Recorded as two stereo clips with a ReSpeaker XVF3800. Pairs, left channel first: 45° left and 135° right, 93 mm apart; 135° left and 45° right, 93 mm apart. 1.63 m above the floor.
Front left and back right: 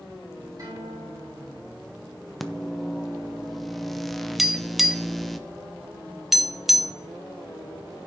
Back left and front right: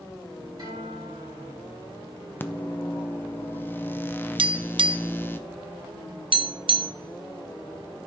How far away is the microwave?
About 0.5 m.